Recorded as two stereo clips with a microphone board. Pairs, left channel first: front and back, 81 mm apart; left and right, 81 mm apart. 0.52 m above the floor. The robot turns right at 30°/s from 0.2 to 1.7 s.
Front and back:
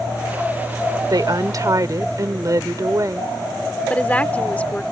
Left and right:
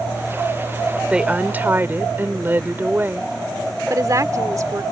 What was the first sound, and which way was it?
A woman speaking, 165° right.